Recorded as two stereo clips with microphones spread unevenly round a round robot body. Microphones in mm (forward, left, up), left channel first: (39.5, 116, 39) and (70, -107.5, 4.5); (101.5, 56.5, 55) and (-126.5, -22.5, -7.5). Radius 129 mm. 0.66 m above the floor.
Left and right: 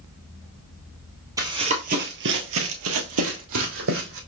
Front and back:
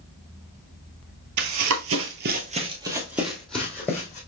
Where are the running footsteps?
165° right, 0.9 m; by 4.2 s 55° right, 1.7 m.